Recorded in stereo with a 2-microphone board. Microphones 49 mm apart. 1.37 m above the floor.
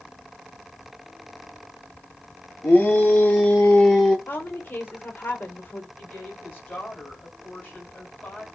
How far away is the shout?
About 4 m.